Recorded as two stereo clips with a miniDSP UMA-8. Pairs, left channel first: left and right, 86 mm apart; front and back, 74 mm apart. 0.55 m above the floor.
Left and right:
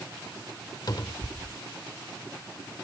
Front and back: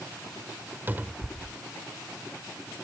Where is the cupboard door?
120° left.